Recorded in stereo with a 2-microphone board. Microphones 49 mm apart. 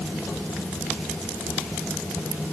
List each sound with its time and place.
Only background noise.